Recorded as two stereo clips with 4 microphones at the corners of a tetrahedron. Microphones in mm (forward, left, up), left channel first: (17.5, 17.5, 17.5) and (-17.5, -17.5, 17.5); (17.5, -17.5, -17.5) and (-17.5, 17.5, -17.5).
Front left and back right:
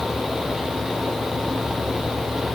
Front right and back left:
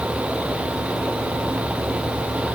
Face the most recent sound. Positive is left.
No sound to turn to.